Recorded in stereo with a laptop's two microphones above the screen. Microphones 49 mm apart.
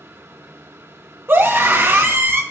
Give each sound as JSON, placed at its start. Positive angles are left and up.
{"t": 0.0, "sound": "a fan", "side_deg": -55, "distance_m": 1.0}
{"t": 1.3, "sound": "a scream", "side_deg": -45, "distance_m": 1.2}